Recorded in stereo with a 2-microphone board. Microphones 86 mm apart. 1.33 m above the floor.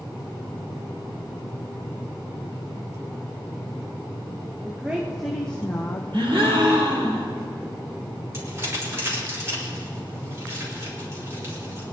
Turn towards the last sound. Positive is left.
turn(degrees=-30)  # may be behind; listen again after turning